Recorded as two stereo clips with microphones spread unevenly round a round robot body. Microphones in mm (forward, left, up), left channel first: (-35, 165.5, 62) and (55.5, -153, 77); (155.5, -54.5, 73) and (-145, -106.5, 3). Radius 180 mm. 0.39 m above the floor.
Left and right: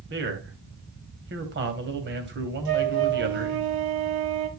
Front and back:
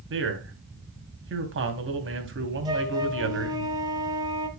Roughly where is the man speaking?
Behind right.